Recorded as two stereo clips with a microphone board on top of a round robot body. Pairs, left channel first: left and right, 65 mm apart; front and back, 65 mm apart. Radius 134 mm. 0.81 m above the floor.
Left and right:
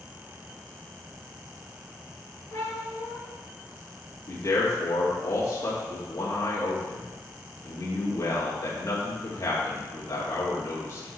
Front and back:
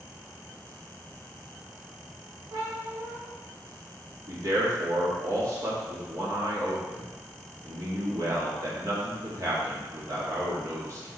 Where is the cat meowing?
145° left, 1.3 m.